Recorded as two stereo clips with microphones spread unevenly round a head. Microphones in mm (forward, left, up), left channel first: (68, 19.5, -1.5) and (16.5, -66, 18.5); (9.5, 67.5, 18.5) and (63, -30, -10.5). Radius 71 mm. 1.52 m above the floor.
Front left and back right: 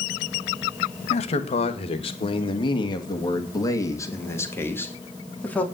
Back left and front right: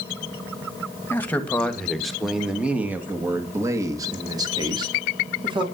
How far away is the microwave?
No microwave in this recording.